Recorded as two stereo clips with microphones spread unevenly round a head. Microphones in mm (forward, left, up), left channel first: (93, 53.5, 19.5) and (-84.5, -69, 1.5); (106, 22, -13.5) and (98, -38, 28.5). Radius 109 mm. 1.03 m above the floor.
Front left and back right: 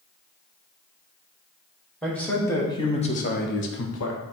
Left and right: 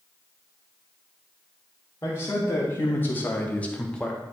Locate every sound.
2.0 s a man speaking: 120° left, 2.0 m; by 4.2 s 25° left, 1.2 m